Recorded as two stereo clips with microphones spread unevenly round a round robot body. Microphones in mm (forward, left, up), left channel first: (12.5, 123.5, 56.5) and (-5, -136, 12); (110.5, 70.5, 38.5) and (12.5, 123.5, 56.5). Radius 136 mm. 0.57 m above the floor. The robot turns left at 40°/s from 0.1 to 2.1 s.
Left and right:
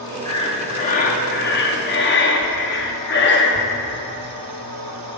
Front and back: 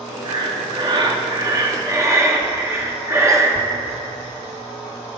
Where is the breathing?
165° left, 1.1 m; by 3.7 s 90° left, 1.1 m.